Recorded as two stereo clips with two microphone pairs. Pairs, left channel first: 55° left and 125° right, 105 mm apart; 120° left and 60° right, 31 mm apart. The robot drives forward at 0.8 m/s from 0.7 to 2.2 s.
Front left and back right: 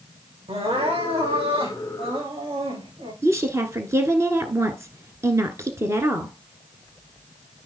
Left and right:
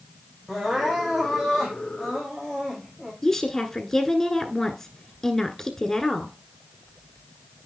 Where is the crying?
145° right, 6 m; by 3.1 s 150° right, 7 m.